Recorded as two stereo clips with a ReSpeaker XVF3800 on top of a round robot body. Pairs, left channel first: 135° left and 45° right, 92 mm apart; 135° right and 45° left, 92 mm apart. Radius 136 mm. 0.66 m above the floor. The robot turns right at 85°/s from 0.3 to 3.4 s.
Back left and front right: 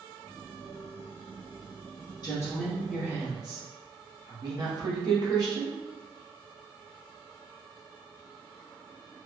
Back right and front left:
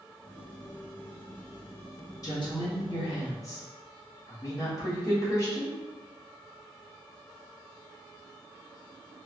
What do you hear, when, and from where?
2.2 s a woman speaking: 175° left, 1.6 m; by 5.7 s 85° right, 1.6 m